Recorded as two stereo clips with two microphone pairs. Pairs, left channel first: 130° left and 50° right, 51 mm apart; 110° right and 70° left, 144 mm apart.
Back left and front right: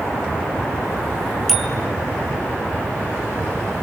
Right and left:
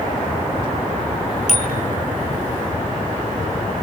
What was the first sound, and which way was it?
A bicycle bell, 145° right.